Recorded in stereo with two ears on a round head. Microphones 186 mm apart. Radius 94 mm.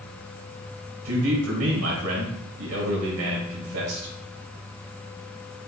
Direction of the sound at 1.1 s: 85° right.